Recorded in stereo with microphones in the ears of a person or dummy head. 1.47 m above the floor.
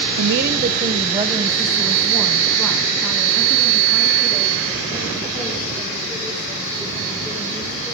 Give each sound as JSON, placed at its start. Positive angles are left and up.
{"t": 0.2, "sound": "a woman speaking", "side_deg": -65, "distance_m": 0.6}